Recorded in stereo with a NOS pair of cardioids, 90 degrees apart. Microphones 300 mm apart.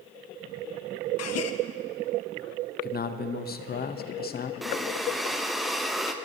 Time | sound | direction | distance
1.2 | a gasp | 55° left | 0.7 m
2.8 | a man speaking | 30° left | 0.7 m
4.6 | breathing | straight ahead | 0.6 m